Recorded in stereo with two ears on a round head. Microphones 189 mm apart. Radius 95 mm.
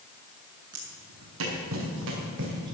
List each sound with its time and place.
0.7 s footsteps: 70° right (ahead or behind), 5 m; by 2.8 s 55° right (ahead or behind), 5.5 m